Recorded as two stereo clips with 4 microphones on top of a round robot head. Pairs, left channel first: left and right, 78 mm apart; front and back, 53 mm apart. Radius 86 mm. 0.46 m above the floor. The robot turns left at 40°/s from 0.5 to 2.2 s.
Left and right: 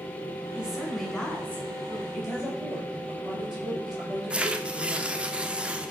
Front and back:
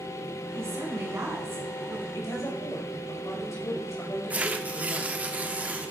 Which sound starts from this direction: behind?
A woman speaking, at 0.6 s.